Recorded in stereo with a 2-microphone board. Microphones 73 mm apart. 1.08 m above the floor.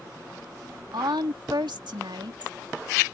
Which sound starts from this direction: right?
A woman speaking, at 0.9 s.